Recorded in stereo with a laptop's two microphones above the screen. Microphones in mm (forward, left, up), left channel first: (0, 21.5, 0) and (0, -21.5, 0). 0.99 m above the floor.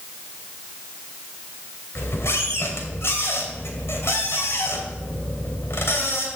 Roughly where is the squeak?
Left.